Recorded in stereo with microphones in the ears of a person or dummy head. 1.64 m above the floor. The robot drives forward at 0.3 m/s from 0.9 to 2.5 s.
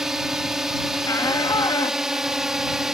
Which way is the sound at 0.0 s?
Centre (ahead or behind).